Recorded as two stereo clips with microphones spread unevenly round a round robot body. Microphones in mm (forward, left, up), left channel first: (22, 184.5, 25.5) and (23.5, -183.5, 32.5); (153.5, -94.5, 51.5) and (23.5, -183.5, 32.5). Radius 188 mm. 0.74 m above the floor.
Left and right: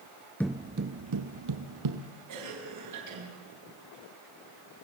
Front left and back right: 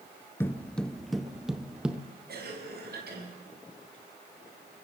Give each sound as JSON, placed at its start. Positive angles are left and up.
{"t": 0.4, "sound": "footsteps", "azimuth_deg": 10, "distance_m": 0.7}
{"t": 2.3, "sound": "a cough", "azimuth_deg": -135, "distance_m": 6.0}